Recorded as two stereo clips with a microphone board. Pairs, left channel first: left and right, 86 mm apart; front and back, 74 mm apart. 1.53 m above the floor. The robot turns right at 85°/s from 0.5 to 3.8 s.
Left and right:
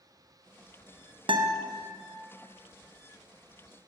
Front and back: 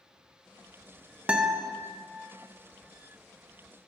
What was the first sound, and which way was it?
A guitar, 105° right.